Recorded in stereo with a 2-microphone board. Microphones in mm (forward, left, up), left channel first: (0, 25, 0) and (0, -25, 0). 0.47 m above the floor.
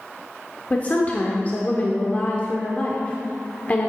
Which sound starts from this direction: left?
A woman speaking, at 0.7 s.